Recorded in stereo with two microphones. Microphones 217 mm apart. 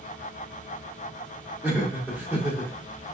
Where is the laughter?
10° right (ahead or behind), 1.5 m.